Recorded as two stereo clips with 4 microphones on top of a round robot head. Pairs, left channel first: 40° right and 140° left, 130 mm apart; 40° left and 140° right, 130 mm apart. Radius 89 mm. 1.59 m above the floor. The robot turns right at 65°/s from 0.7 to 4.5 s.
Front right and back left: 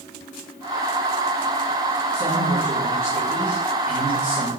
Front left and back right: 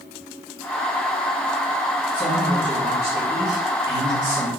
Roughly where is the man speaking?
Left.